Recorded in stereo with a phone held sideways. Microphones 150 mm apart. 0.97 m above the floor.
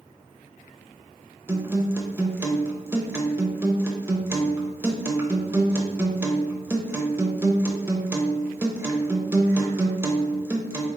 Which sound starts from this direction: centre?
A guitar, at 1.5 s.